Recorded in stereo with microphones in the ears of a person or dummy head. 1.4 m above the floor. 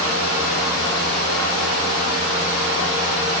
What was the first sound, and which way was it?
Only background noise.